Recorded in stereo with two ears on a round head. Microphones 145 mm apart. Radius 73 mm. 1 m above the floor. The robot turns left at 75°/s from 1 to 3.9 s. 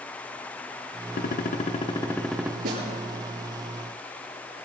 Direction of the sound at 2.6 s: 65° right (ahead or behind).